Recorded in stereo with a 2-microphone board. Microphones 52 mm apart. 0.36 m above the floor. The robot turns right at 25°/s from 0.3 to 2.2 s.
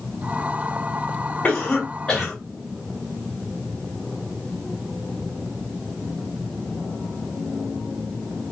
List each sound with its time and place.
1.4 s a cough: 30° left (ahead or behind), 2 m; by 2.3 s 15° left (ahead or behind), 2 m